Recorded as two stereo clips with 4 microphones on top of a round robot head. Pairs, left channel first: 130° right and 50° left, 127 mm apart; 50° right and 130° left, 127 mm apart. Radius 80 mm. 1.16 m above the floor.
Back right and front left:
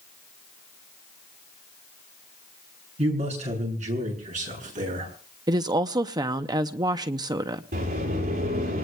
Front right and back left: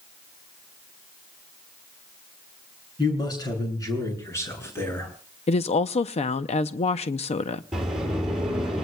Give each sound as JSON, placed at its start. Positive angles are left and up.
{"t": 3.0, "sound": "a man speaking", "azimuth_deg": 10, "distance_m": 7.0}
{"t": 5.5, "sound": "a woman speaking", "azimuth_deg": -10, "distance_m": 0.6}
{"t": 7.7, "sound": "a sliding door", "azimuth_deg": 45, "distance_m": 9.5}